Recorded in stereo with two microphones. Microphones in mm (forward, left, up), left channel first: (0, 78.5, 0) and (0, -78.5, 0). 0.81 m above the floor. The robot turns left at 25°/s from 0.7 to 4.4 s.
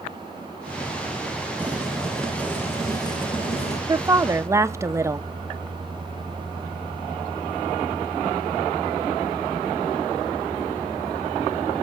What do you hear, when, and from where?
1.6 s boiling: 170° right, 2 m; by 3.8 s 135° left, 2 m
3.9 s a woman speaking: 20° right (ahead or behind), 0.5 m